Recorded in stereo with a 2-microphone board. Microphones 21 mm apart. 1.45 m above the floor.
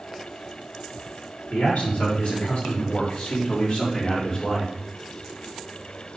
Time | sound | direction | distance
1.5 | a man speaking | 75° left (ahead or behind) | 4.5 m